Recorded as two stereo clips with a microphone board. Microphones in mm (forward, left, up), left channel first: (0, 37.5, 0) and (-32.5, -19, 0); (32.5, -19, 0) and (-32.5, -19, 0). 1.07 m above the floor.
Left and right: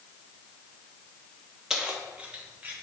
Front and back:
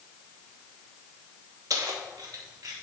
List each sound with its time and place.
1.7 s keys jangling: 160° left, 1.0 m; by 2.8 s 175° left, 1.8 m